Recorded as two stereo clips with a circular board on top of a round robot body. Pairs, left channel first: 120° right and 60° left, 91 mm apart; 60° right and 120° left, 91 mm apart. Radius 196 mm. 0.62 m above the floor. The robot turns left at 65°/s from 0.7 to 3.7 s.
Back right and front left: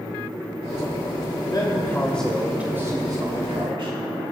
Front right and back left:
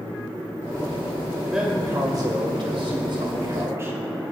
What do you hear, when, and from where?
1.5 s a man speaking: 155° right, 2.5 m; by 4.0 s 60° left, 2.5 m